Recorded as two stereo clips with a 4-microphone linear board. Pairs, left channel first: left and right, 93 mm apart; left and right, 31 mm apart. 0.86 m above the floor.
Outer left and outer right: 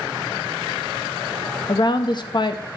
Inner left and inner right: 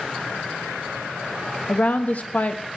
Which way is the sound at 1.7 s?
50° left (ahead or behind).